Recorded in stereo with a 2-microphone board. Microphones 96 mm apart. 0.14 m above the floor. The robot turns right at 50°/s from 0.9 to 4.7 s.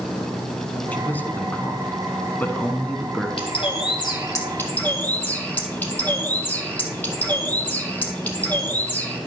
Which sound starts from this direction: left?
A bird, at 3.4 s.